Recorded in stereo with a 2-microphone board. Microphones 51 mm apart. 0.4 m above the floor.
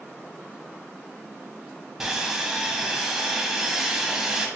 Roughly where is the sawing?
Centre.